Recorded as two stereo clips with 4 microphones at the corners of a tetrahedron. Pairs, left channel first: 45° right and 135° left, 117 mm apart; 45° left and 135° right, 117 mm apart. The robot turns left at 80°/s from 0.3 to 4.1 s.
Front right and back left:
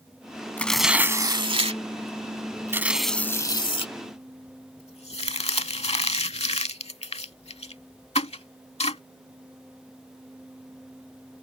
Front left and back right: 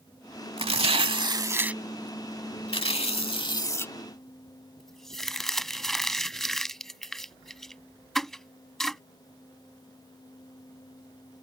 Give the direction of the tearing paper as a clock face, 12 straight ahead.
4 o'clock.